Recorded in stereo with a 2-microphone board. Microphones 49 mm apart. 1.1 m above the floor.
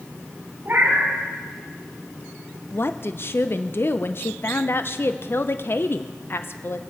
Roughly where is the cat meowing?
Right.